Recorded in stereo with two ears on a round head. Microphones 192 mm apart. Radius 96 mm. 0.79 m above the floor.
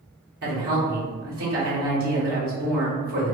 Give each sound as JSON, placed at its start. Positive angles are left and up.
{"t": 0.4, "sound": "a woman speaking", "side_deg": -45, "distance_m": 1.5}